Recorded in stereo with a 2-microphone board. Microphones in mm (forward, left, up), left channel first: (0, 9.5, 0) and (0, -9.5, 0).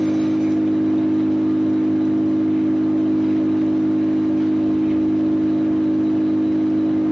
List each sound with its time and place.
0.0 s an engine running: 45° right (ahead or behind), 3 m